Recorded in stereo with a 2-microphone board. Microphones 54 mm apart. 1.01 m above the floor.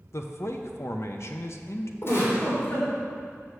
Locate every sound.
0.1 s a man speaking: 55° left (ahead or behind), 0.7 m
2.0 s a giggle: 50° left (ahead or behind), 3 m